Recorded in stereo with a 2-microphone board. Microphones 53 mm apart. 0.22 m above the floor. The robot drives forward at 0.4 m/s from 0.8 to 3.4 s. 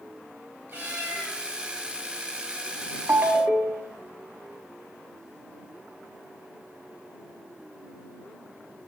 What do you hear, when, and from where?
0.7 s a cat meowing: 45° right (ahead or behind), 1.5 m; by 1.4 s 40° right (ahead or behind), 1.7 m
3.1 s a ringtone: 55° right (ahead or behind), 0.5 m; by 4.0 s 50° right (ahead or behind), 0.6 m